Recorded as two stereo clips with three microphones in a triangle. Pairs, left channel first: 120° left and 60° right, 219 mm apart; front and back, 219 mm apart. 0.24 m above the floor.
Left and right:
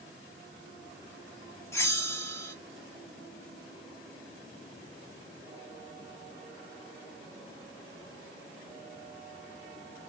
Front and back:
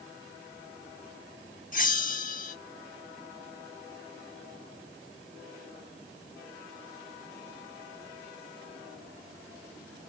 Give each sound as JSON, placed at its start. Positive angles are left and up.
{"t": 1.7, "sound": "a bell", "azimuth_deg": 45, "distance_m": 0.9}